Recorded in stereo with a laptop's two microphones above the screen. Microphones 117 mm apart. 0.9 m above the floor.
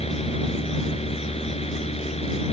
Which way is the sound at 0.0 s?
55° left (ahead or behind).